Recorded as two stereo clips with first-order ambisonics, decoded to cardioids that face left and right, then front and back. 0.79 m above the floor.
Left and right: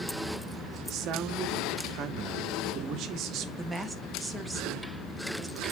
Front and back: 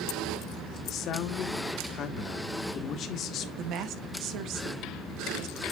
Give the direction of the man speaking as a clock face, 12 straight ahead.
2 o'clock.